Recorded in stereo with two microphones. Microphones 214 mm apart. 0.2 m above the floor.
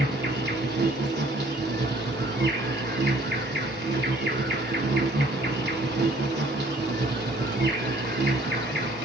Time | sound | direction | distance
0.0 | an insect | 50° right (ahead or behind) | 1.2 m